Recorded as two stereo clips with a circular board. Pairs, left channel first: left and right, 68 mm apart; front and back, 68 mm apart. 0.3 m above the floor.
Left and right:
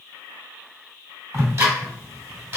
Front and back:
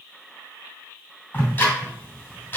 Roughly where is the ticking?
Ahead right.